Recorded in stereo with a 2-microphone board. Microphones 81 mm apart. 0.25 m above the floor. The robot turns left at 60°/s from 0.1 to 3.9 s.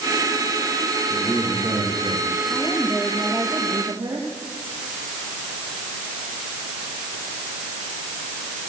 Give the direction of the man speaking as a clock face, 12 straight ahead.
12 o'clock.